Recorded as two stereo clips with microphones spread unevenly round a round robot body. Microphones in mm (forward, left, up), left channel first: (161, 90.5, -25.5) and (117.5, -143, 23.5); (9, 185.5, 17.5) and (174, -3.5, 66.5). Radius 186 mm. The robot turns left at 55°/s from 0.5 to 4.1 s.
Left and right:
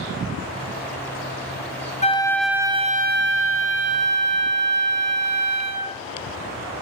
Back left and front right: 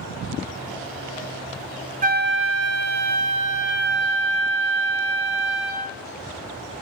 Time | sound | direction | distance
2.0 | a flute | 10° left | 0.7 m